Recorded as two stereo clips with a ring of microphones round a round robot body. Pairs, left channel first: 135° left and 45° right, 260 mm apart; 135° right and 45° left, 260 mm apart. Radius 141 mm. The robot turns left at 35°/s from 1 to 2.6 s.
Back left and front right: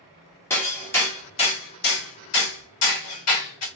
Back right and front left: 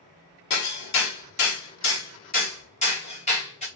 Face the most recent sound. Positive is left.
turn(degrees=160)